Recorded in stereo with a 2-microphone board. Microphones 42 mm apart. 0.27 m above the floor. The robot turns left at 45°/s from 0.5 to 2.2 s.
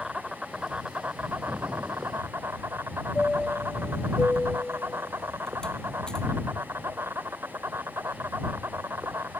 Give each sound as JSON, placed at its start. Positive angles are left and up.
{"t": 0.0, "sound": "an insect", "azimuth_deg": -15}
{"t": 1.5, "sound": "an explosion", "azimuth_deg": -25}
{"t": 3.1, "sound": "a chime", "side_deg": 15}